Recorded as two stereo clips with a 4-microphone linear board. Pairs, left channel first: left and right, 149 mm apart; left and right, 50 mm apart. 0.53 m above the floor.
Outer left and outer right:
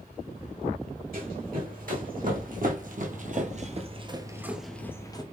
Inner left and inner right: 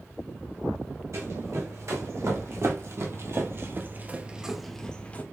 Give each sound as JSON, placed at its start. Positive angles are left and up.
{"t": 1.1, "sound": "running footsteps", "side_deg": -70, "distance_m": 2.0}